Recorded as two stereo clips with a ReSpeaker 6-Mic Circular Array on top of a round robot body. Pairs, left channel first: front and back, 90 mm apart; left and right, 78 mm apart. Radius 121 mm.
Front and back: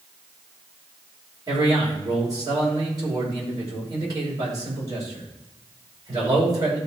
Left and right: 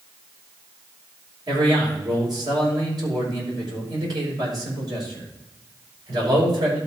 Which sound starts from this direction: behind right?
A man speaking, at 1.5 s.